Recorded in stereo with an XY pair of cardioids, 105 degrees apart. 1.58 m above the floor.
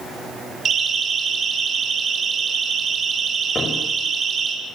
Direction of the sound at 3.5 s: 35° left.